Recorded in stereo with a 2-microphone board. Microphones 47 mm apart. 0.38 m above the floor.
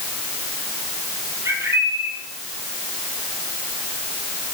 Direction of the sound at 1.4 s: 70° right (ahead or behind).